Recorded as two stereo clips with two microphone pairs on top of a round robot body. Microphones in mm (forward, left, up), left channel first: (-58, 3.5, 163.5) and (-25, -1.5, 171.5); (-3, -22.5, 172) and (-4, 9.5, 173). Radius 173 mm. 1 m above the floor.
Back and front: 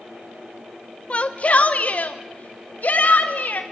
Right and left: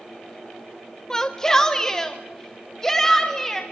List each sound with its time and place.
1.1 s a shout: 155° right, 1.2 m; by 3.6 s 160° right, 2.5 m